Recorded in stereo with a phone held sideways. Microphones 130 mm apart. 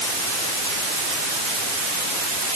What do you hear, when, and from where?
Only background noise.